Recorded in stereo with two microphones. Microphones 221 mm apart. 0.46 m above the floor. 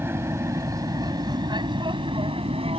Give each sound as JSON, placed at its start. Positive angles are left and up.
{"t": 0.0, "sound": "an aircraft", "side_deg": -10}